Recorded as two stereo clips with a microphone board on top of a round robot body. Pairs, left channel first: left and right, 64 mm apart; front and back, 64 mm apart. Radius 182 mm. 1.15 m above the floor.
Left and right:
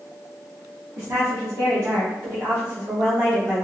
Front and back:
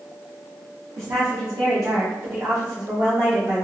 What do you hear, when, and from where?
1.0 s a woman speaking: 140° right, 0.7 m; by 3.6 s 135° right, 2 m